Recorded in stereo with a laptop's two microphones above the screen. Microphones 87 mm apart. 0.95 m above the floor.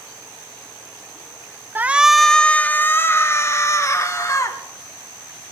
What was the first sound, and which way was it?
A shout, 25° right (ahead or behind).